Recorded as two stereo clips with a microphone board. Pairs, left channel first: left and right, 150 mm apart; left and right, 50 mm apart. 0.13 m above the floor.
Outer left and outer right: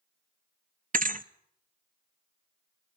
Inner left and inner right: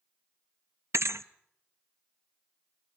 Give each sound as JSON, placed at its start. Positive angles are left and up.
{"t": 0.9, "sound": "a thud", "side_deg": -65, "distance_m": 0.6}